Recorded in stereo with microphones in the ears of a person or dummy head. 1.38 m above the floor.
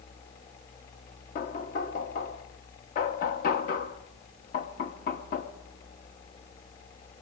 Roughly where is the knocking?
Left.